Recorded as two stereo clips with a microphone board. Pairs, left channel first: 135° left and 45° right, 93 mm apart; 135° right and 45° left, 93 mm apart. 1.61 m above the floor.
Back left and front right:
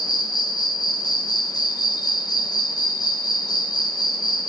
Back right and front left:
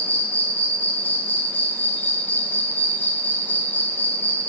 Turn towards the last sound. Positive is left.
turn(degrees=160)